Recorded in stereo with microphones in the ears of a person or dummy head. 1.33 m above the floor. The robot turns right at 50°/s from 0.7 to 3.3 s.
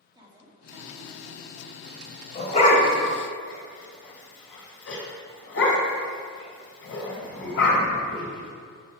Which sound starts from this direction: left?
A dog barking, at 2.4 s.